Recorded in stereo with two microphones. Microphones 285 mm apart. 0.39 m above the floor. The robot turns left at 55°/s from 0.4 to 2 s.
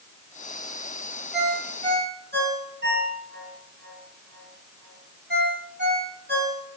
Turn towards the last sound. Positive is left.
turn(degrees=-35)  # may be behind; listen again after turning